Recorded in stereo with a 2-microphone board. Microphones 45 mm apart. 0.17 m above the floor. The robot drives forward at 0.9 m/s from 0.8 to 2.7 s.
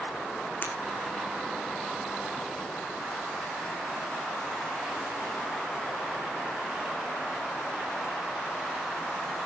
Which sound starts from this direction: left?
Breaking glass, at 0.6 s.